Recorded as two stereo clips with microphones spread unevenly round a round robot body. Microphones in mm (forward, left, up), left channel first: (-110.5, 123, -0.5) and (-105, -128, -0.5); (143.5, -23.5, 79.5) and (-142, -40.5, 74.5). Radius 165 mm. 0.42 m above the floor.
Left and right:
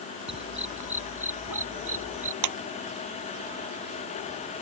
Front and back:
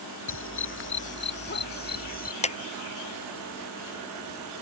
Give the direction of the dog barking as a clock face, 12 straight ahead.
1 o'clock.